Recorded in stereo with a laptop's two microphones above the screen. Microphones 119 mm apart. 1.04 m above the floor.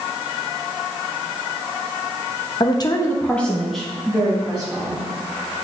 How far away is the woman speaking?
About 0.7 m.